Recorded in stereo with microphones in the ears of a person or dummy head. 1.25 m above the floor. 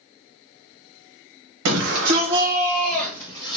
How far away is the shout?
About 0.7 m.